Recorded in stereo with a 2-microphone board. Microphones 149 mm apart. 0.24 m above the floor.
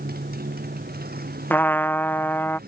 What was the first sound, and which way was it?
A motorcycle, 85° right.